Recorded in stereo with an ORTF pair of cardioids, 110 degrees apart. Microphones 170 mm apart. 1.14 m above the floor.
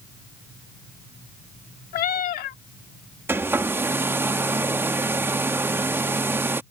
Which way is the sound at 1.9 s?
60° left.